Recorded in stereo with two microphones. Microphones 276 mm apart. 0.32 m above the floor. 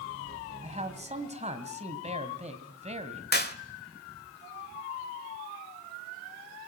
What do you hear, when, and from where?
0.6 s a man speaking: 25° right (ahead or behind), 2 m
3.3 s a clap: 35° left (ahead or behind), 1.3 m